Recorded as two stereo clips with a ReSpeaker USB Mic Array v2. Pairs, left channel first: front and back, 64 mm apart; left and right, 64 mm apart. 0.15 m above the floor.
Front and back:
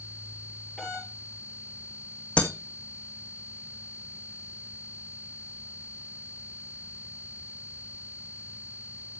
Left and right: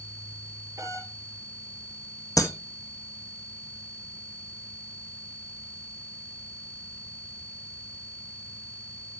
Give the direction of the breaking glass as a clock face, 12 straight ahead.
10 o'clock.